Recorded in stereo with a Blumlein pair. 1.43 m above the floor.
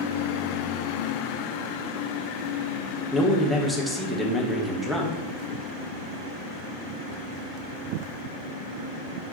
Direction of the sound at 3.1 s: Straight ahead.